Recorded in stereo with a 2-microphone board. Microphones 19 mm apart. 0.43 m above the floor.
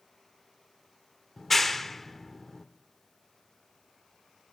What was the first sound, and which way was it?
A clap, 10° left (ahead or behind).